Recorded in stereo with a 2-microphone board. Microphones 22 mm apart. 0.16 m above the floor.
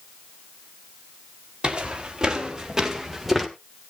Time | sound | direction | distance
1.6 | footsteps | 40° right (ahead or behind) | 3.5 m